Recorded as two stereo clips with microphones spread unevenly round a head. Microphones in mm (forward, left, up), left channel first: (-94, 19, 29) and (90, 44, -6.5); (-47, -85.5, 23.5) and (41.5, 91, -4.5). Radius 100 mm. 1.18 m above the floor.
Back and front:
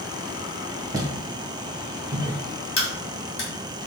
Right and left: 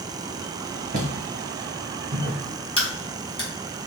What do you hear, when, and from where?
0.9 s footsteps: 80° left, 1.3 m; by 2.4 s 120° left, 1.7 m
2.8 s a crack: 175° right, 1.3 m